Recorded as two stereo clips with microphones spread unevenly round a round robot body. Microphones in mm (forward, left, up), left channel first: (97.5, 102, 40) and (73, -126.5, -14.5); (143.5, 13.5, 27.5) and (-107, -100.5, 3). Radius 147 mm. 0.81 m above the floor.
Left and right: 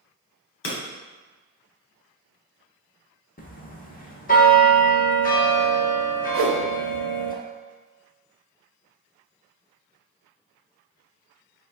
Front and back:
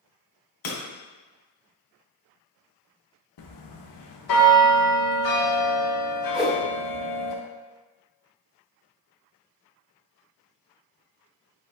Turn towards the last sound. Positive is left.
turn(degrees=-65)